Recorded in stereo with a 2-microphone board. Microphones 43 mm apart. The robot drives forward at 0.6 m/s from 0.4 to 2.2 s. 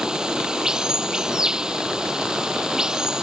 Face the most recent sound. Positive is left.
turn(degrees=-15)  # may be behind; listen again after turning